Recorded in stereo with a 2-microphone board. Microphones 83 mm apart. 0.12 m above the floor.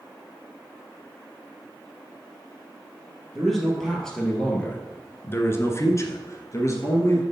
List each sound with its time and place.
3.4 s a man speaking: centre (ahead or behind), 2.5 m; by 7.2 s 35° left (ahead or behind), 2 m